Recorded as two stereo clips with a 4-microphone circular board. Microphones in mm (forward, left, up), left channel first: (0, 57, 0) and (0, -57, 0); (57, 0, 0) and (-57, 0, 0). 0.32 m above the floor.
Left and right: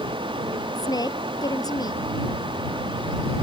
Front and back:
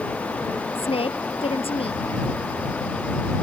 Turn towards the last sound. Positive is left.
turn(degrees=35)